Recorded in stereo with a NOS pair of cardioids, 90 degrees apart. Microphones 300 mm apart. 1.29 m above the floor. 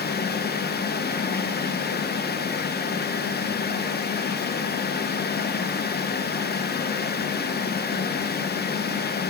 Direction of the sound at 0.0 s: 35° left.